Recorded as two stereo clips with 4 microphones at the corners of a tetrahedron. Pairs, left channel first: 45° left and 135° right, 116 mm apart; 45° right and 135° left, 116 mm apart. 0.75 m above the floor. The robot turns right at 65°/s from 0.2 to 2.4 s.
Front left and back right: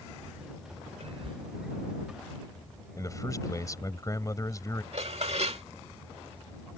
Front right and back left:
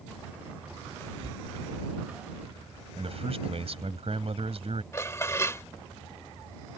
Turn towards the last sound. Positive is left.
turn(degrees=-110)